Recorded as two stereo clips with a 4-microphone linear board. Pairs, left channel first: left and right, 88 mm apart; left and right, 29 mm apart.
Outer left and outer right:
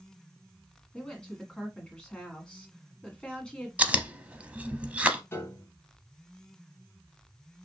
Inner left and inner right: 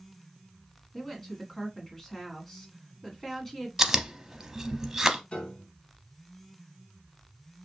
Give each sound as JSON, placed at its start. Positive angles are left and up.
{"t": 0.9, "sound": "a woman speaking", "side_deg": 10, "distance_m": 1.6}
{"t": 3.8, "sound": "chewing", "side_deg": -15, "distance_m": 0.6}
{"t": 5.3, "sound": "a piano", "side_deg": 30, "distance_m": 0.9}